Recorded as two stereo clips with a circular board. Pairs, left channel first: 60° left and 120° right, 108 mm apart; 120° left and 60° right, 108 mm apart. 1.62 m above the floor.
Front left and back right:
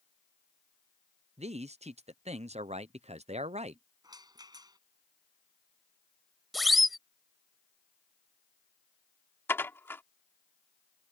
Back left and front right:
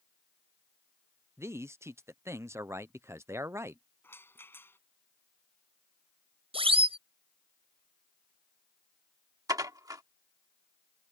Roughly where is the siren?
Ahead right.